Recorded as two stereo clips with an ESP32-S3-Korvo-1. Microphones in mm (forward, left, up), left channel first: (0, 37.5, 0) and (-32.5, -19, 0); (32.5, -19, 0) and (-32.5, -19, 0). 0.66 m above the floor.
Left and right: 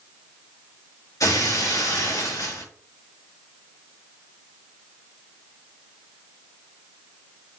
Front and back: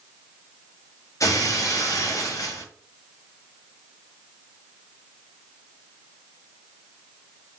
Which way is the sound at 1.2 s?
35° left.